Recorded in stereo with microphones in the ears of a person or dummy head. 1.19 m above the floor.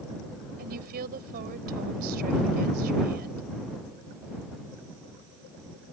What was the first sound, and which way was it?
A woman speaking, 50° right (ahead or behind).